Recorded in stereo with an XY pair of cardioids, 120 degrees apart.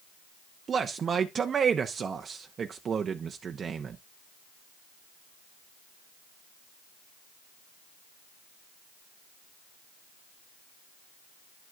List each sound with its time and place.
0.7 s a man speaking: 40° right, 0.6 m